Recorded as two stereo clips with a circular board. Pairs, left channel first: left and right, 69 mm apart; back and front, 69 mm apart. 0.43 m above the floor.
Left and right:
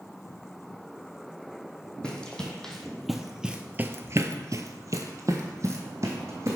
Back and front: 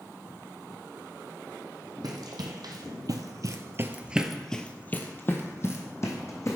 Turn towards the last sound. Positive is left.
turn(degrees=-140)